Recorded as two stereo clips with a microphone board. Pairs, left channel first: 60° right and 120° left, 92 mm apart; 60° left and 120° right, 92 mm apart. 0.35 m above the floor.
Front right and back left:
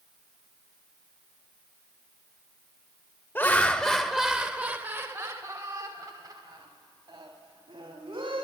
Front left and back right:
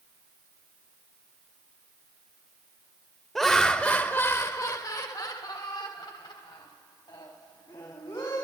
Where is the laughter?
25° right, 0.9 m; by 8.4 s 90° left, 2.5 m.